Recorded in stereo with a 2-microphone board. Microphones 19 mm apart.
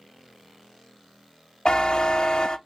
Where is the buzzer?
45° left (ahead or behind), 0.7 m.